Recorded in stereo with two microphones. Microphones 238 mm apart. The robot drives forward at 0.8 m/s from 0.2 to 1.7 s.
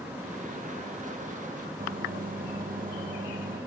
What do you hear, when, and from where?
1.8 s a microwave: 35° right (ahead or behind), 0.7 m